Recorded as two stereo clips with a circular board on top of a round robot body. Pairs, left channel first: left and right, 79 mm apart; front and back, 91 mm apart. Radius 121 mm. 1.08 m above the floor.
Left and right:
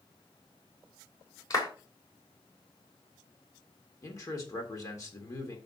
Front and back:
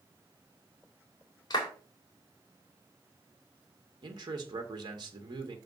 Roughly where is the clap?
Ahead left.